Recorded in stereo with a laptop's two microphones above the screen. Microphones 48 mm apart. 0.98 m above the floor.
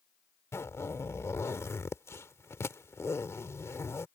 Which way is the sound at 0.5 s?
85° left.